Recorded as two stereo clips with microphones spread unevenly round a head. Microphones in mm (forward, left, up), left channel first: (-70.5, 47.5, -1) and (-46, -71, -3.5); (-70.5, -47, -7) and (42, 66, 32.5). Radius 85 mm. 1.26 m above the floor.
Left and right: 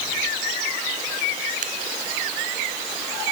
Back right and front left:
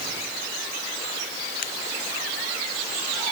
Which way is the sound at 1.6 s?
90° right.